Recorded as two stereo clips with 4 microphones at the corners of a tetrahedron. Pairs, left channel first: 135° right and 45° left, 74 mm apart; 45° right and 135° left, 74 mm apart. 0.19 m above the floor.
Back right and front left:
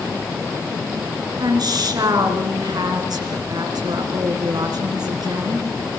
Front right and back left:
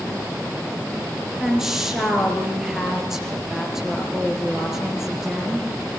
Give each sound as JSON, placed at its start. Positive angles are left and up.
{"t": 1.4, "sound": "a woman speaking", "azimuth_deg": 55, "distance_m": 3.5}